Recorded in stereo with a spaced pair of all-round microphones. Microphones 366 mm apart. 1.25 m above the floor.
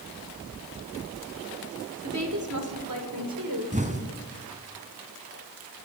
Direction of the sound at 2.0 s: 45° right (ahead or behind).